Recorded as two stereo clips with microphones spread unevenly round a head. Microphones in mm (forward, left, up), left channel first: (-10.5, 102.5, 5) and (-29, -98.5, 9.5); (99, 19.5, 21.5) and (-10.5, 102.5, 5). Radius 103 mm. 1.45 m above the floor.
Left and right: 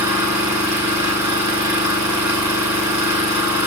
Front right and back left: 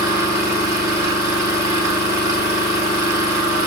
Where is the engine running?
175° right, 7 m.